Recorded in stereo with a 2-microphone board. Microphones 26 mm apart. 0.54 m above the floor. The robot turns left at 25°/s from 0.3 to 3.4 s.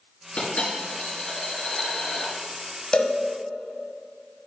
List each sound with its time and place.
0.4 s a dropped coin: 60° left, 2.5 m; by 2.3 s 10° left, 2.5 m
2.9 s a cowbell: 35° left (ahead or behind), 1.0 m; by 3.2 s 40° left (ahead or behind), 1.0 m